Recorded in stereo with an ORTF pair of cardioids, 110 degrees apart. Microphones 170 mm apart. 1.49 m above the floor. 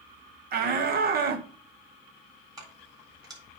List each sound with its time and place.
0.5 s a shout: 65° right, 1.3 m
2.6 s keys jangling: 25° right, 4 m